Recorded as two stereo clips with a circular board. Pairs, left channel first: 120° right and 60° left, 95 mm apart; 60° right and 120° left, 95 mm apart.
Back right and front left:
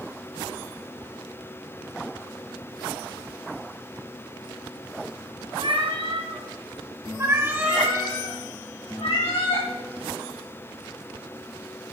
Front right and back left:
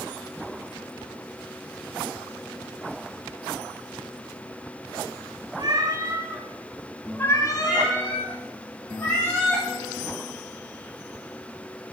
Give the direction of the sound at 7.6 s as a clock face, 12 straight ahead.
4 o'clock.